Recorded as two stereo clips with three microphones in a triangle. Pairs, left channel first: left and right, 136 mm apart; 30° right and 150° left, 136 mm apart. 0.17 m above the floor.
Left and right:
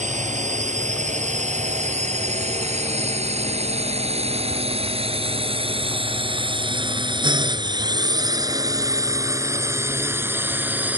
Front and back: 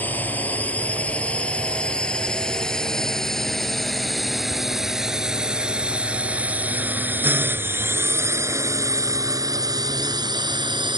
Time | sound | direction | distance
0.0 | a drone | 105° right | ?